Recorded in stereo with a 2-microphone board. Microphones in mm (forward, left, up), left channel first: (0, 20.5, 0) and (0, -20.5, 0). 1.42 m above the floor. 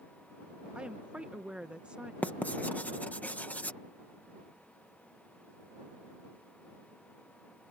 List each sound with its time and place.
0.8 s a woman speaking: 30° right (ahead or behind)
2.2 s writing: 40° left (ahead or behind)